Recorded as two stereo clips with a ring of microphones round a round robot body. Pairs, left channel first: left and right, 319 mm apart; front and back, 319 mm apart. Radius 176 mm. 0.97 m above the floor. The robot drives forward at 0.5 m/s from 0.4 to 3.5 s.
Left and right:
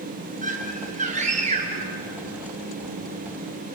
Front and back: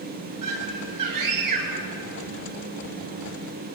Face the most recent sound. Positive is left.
turn(degrees=-160)